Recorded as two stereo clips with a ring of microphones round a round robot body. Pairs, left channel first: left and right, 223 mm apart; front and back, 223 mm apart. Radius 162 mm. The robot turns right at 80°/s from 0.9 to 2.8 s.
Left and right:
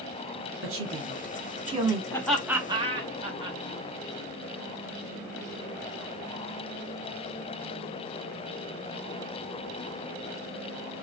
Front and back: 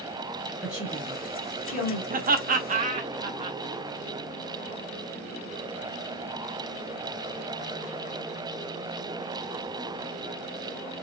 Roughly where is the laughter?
Behind.